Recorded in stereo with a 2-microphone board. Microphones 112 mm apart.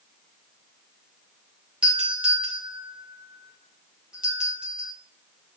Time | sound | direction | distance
1.8 | a doorbell | 10° right (ahead or behind) | 4 m